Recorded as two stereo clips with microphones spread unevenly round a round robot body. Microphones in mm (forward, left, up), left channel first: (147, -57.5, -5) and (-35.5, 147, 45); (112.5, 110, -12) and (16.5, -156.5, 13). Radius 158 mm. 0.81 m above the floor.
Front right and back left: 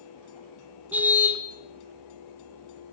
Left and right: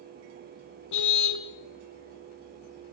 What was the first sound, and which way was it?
A car horn, 50° left.